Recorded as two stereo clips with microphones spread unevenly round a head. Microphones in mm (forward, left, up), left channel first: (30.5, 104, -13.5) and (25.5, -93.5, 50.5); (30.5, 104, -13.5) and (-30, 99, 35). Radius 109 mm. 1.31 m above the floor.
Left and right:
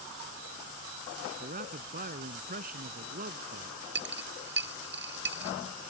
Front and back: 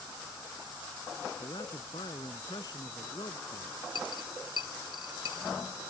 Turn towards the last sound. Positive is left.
turn(degrees=-70)